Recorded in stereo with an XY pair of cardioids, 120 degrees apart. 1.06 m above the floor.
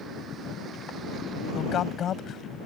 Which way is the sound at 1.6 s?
55° left.